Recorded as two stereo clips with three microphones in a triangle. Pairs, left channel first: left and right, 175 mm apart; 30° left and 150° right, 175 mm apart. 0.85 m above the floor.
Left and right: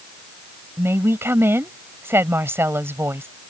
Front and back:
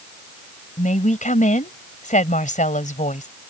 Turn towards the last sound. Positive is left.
turn(degrees=-15)